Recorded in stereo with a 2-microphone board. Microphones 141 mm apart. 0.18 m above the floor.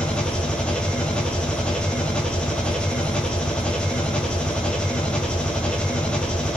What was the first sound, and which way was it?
An engine running, 5° left (ahead or behind).